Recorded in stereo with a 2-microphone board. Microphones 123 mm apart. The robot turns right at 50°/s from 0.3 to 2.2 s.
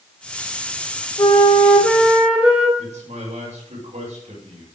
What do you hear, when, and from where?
1.2 s a flute: 140° left, 2.5 m; by 2.7 s 170° right, 2.5 m
2.8 s a man speaking: 80° right, 6 m